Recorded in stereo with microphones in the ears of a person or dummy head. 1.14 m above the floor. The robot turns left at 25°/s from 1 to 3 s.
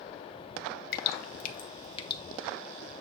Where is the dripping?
55° left (ahead or behind), 1.0 m; by 2.2 s 30° left (ahead or behind), 1.0 m.